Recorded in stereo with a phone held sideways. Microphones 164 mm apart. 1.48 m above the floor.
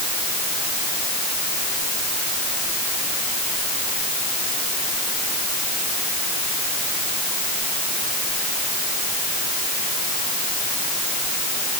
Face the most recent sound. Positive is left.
No sound to turn to.